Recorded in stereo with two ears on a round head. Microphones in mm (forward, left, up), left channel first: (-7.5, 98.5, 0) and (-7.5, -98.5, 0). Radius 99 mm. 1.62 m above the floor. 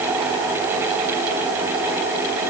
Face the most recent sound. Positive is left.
No sound to turn to.